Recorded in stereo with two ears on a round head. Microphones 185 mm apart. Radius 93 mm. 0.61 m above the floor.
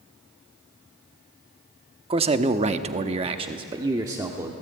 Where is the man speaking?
25° right (ahead or behind), 1.1 m; by 4.5 s 10° right (ahead or behind), 1.5 m.